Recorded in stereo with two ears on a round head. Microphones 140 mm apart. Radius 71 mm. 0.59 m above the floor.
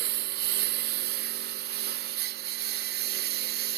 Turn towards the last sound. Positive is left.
turn(degrees=-75)  # may be behind; listen again after turning